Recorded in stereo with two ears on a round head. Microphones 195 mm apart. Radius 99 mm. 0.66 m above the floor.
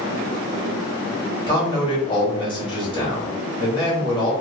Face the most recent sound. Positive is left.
turn(degrees=20)  # may be behind; listen again after turning